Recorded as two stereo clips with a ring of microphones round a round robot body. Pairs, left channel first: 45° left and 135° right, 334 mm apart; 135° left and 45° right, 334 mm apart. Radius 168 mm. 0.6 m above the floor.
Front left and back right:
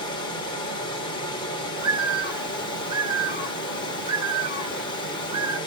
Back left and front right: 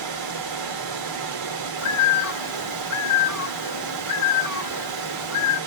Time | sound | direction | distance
0.0 | running water | 30° right | 1.9 m
1.8 | a bird | 150° left | 1.2 m